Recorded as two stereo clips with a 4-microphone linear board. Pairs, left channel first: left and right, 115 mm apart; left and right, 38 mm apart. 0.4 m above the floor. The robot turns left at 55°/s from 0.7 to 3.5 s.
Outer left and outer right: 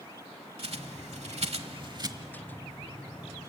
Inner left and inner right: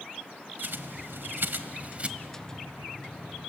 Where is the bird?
60° right (ahead or behind), 1.0 m; by 2.1 s 35° right (ahead or behind), 1.0 m.